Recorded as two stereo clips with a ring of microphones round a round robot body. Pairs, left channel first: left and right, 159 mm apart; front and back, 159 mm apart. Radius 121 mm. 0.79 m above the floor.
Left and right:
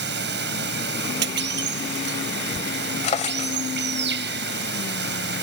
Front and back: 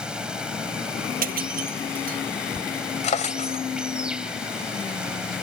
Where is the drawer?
45° left.